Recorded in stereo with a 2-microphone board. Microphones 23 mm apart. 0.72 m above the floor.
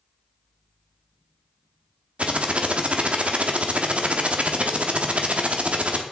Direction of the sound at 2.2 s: 60° right (ahead or behind).